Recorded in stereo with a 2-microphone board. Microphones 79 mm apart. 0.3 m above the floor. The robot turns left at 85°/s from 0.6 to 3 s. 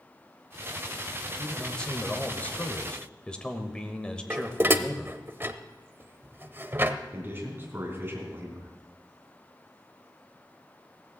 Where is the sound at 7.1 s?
30° right (ahead or behind), 3.5 m.